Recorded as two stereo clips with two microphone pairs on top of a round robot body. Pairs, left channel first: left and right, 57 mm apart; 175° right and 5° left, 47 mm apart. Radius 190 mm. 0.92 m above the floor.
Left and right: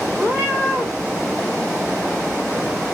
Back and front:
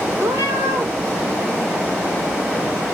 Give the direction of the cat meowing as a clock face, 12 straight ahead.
1 o'clock.